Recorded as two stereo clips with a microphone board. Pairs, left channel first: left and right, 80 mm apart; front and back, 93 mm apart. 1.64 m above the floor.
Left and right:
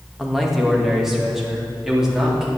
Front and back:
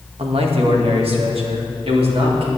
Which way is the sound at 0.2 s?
Straight behind.